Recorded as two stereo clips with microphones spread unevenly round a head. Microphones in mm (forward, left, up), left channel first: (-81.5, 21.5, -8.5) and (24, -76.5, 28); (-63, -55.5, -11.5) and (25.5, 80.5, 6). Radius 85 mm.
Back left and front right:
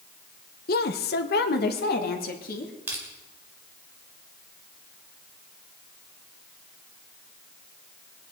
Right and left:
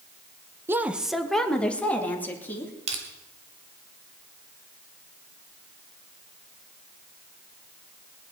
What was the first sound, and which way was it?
A woman speaking, 120° left.